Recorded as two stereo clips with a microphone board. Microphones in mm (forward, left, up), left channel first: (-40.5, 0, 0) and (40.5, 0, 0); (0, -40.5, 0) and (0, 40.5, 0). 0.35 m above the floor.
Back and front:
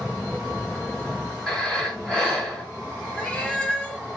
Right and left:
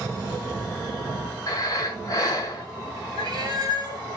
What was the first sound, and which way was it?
Breathing, 100° right.